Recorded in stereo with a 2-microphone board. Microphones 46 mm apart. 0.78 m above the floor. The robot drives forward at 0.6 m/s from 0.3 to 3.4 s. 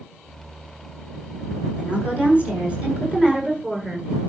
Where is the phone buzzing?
No phone buzzing in this recording.